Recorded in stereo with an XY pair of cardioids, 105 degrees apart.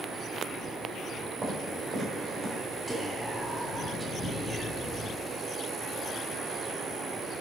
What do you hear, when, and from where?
1.4 s footsteps: 45° right, 3.5 m
2.9 s whispering: 20° right, 1.8 m